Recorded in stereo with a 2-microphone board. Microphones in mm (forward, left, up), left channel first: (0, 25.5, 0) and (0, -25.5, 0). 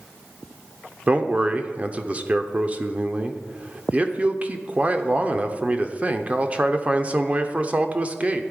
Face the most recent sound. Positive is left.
turn(degrees=-25)  # may be behind; listen again after turning